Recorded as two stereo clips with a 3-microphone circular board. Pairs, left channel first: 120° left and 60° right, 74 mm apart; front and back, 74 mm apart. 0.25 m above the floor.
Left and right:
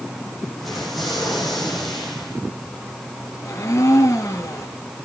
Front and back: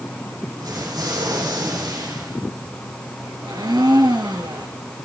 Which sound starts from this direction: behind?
A blender, at 3.4 s.